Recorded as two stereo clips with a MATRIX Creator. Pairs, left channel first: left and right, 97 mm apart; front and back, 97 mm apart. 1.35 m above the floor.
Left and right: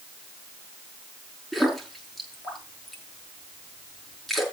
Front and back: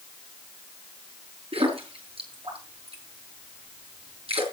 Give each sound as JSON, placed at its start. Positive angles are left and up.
{"t": 1.5, "sound": "a splash", "azimuth_deg": 180, "distance_m": 6.0}